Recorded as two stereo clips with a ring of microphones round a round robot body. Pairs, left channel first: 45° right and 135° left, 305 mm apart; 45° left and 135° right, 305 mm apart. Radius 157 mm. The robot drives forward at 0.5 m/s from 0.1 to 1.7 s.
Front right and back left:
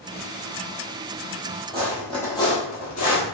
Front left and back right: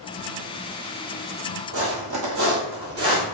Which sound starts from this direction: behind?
Footsteps, at 1.7 s.